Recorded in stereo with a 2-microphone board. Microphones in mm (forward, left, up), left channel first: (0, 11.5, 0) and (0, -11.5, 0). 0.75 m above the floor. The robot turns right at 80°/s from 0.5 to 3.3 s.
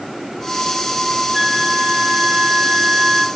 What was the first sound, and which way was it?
A flute, 150° right.